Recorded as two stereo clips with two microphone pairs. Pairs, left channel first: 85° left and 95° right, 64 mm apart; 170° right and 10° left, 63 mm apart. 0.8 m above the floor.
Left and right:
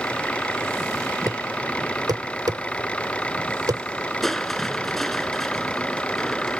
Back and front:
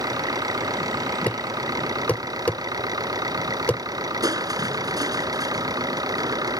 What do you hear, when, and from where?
0.0 s an engine running: 10° left
1.3 s a thud: 105° right
4.2 s crushing: straight ahead